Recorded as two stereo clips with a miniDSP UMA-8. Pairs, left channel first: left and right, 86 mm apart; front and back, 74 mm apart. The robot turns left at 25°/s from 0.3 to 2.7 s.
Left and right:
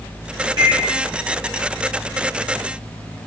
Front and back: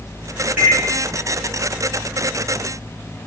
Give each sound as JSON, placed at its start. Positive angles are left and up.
{"t": 0.6, "sound": "a microwave", "azimuth_deg": -110, "distance_m": 2.0}